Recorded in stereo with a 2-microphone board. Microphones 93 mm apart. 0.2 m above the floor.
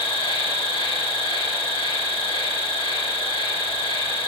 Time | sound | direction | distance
0.0 | an insect | 85° left | 1.3 m